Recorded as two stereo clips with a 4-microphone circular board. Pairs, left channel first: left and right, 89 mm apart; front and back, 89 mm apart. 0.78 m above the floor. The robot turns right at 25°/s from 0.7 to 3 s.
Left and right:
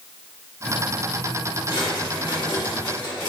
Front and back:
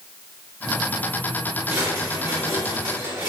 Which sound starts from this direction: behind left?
A drawer, at 1.7 s.